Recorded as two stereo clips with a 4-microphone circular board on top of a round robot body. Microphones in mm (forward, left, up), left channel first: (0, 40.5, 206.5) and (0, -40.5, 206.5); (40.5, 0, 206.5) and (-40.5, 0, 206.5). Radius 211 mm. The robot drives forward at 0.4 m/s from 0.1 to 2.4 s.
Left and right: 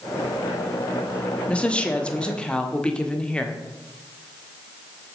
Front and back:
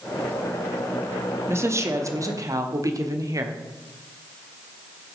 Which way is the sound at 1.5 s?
155° left.